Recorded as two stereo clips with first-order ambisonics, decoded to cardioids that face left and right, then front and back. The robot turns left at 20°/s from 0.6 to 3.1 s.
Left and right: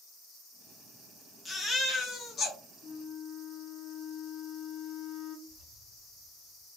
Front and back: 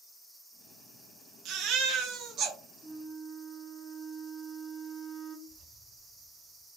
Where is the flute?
80° left, 1.0 m; by 5.4 s 75° left, 1.0 m.